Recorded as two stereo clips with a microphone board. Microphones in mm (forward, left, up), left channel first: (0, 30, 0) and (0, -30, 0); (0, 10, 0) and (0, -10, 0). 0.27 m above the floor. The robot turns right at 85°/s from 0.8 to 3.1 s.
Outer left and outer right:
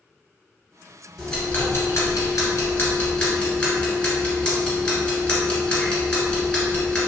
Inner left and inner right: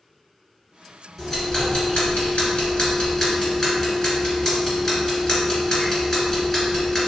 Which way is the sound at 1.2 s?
Centre (ahead or behind).